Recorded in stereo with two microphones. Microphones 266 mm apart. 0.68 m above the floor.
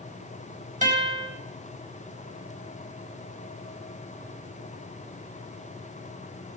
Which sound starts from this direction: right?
A guitar, at 0.8 s.